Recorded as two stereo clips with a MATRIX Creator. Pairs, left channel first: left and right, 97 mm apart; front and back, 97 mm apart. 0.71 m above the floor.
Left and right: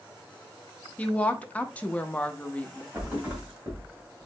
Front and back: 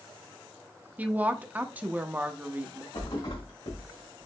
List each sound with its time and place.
1.0 s a woman speaking: 140° left, 0.5 m
2.9 s a thud: 20° right, 2 m